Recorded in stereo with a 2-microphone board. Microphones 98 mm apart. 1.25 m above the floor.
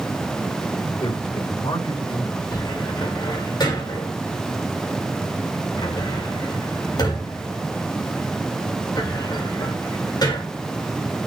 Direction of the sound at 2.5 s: 45° left (ahead or behind).